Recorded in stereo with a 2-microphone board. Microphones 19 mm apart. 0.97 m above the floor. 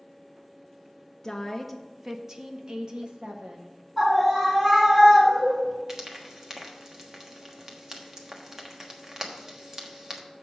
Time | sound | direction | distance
1.2 | a woman speaking | 25° left (ahead or behind) | 0.6 m
4.0 | a scream | centre (ahead or behind) | 3 m
5.9 | frying | 25° right (ahead or behind) | 1.2 m